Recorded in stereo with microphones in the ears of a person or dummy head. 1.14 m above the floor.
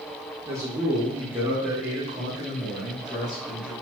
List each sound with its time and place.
0.5 s a man speaking: 10° right (ahead or behind), 0.7 m; by 3.7 s centre (ahead or behind), 1.9 m